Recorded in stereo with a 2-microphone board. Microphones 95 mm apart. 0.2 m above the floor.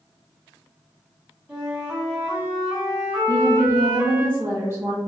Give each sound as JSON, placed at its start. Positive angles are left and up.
{"t": 1.5, "sound": "a flute", "side_deg": -10, "distance_m": 1.4}
{"t": 3.3, "sound": "a woman speaking", "side_deg": -25, "distance_m": 1.5}